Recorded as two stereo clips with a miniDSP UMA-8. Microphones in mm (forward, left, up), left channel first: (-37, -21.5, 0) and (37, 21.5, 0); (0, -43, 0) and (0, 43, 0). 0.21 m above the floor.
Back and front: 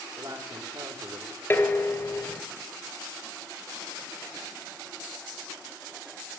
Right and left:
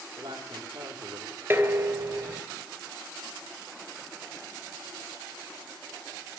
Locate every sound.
0.2 s a woman speaking: 80° left, 8 m
1.5 s dishes clattering: 150° left, 2 m